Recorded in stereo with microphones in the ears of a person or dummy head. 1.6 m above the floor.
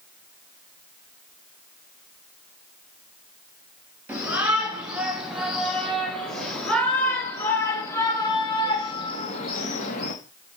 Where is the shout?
5° right (ahead or behind), 5 m; by 10.1 s 50° left (ahead or behind), 2.5 m.